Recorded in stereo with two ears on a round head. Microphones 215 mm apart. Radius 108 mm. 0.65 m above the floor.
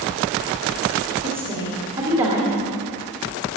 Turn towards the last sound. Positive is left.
turn(degrees=-25)  # may be behind; listen again after turning